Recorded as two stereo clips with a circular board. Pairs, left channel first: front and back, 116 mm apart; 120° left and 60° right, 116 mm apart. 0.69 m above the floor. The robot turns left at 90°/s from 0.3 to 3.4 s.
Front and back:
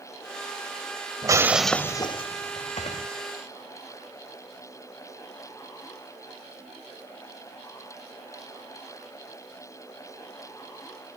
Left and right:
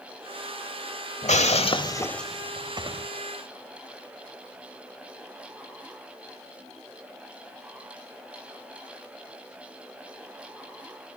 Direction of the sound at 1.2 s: 125° left.